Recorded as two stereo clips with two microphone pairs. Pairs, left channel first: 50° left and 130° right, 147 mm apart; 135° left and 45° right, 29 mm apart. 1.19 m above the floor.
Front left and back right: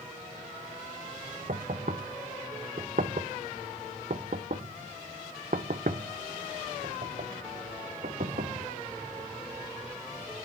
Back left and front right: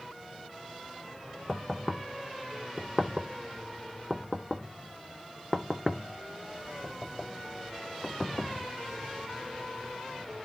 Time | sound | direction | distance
1.5 | knocking | 140° right | 0.6 m